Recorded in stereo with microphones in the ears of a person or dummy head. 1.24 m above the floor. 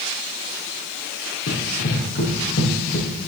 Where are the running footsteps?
65° left (ahead or behind), 4.5 m; by 3.1 s 50° left (ahead or behind), 4 m.